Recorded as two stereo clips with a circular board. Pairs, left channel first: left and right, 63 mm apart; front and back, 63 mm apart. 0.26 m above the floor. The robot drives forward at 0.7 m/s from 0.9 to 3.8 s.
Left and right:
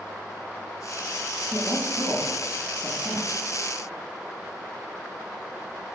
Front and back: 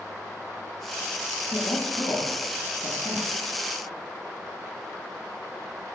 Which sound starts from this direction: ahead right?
A woman speaking, at 1.5 s.